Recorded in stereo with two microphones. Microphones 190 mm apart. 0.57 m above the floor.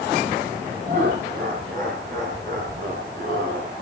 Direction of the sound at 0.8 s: 50° right (ahead or behind).